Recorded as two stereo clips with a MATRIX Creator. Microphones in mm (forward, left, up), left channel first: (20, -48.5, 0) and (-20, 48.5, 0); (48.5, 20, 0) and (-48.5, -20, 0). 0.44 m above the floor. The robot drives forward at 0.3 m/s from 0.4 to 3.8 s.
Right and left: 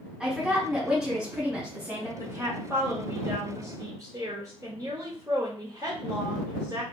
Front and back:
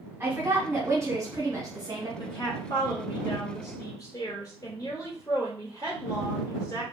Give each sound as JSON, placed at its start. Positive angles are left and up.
{"t": 0.2, "sound": "a woman speaking", "azimuth_deg": -170, "distance_m": 1.2}
{"t": 2.2, "sound": "a woman speaking", "azimuth_deg": 50, "distance_m": 1.7}